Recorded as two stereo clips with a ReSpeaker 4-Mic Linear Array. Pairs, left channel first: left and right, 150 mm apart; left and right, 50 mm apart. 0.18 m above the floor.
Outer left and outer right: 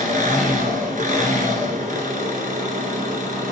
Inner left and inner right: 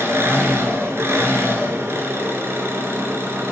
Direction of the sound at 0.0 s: 65° right (ahead or behind).